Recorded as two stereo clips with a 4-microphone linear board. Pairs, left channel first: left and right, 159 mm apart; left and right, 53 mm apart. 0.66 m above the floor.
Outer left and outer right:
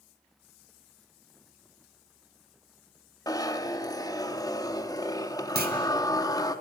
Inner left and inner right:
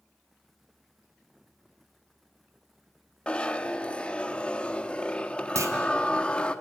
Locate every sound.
3.3 s a zipper: 20° left (ahead or behind), 0.9 m
5.5 s a clunk: 70° right (ahead or behind), 2 m